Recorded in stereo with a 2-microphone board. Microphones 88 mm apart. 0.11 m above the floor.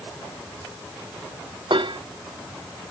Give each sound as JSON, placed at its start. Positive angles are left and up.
{"t": 1.7, "sound": "dishes clattering", "side_deg": -70}